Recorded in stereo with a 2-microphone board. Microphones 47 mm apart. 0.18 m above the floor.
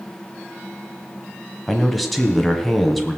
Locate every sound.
1.7 s a man speaking: centre (ahead or behind), 1.5 m